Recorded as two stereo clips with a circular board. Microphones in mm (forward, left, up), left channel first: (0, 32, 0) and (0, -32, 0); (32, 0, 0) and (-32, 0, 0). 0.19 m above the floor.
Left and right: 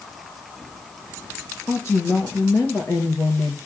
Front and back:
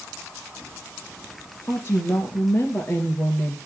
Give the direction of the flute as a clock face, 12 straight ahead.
I don't hear a flute.